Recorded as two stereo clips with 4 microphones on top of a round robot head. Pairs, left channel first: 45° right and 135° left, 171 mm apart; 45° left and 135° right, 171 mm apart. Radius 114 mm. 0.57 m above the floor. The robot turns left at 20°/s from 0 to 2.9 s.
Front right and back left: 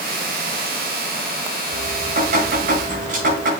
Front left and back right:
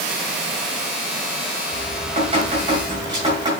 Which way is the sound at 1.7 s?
Straight behind.